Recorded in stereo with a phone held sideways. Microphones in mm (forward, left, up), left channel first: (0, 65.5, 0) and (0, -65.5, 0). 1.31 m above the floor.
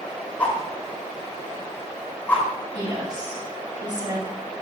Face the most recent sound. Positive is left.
turn(degrees=-35)  # may be behind; listen again after turning